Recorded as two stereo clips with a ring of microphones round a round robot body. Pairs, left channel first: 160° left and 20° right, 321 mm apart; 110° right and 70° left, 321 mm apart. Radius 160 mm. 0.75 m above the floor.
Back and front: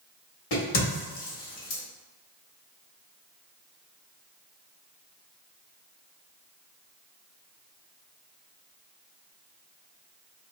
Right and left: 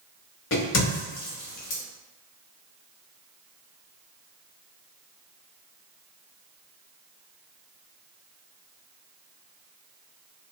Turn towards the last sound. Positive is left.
turn(degrees=-165)